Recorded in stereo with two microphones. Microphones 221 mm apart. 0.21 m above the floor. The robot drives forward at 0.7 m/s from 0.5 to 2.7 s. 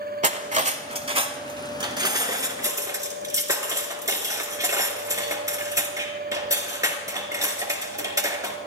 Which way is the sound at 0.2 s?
35° right (ahead or behind).